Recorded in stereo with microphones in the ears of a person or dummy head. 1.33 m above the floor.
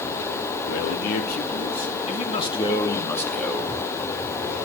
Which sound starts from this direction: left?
A man speaking, at 0.6 s.